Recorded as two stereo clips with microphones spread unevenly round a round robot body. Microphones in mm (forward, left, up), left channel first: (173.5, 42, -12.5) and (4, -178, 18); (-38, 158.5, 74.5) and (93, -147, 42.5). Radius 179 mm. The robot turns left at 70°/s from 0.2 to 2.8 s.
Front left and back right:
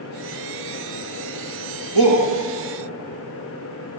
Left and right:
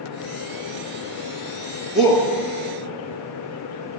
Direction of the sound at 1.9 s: 155° right.